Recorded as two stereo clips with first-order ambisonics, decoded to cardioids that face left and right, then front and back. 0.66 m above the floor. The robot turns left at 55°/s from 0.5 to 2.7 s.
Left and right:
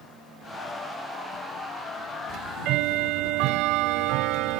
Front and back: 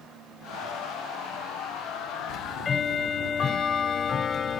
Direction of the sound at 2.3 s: 40° right.